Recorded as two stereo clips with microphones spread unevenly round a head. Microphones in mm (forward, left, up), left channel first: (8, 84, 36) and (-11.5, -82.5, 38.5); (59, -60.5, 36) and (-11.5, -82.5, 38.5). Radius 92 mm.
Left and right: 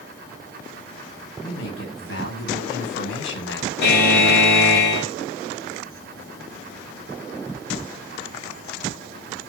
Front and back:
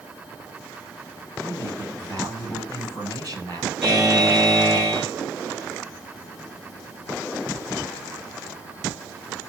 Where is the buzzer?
110° left, 6.5 m.